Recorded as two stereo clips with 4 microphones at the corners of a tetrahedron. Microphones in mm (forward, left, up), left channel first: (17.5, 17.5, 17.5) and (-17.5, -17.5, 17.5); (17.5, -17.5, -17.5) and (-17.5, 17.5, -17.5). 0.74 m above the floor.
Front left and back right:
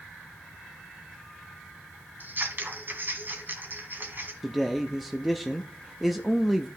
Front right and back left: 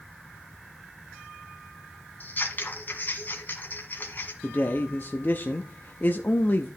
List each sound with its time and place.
2.2 s scissors: 95° right, 2.0 m
4.4 s a man speaking: 45° right, 0.5 m